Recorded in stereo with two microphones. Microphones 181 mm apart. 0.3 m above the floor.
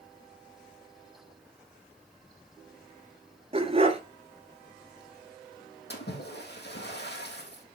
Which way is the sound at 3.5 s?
35° right (ahead or behind).